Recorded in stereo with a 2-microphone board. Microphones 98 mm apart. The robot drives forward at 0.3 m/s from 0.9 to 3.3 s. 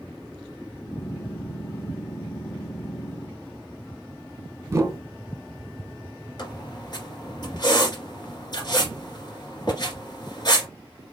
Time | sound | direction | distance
4.7 | a whoosh | 30° right (ahead or behind) | 0.7 m
6.4 | a squeak | 45° left (ahead or behind) | 1.9 m